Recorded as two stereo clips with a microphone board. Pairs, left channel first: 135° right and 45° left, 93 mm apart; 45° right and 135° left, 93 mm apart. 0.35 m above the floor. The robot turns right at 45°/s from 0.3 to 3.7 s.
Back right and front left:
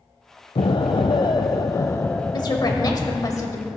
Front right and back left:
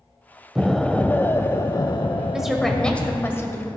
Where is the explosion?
140° right, 0.5 m; by 3.3 s 15° right, 0.5 m.